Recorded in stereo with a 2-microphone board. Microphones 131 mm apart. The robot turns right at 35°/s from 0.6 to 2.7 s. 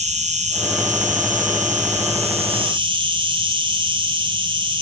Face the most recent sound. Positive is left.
turn(degrees=-40)